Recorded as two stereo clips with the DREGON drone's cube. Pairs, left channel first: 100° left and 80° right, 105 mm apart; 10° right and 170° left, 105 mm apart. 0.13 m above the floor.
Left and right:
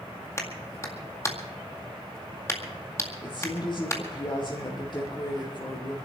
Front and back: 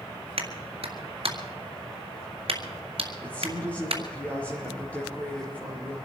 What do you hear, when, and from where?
0.4 s a clap: 160° left, 1.9 m
3.2 s a woman speaking: 65° left, 3.5 m